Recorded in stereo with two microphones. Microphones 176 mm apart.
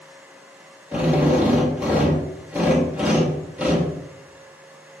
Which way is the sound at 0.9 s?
5° right (ahead or behind).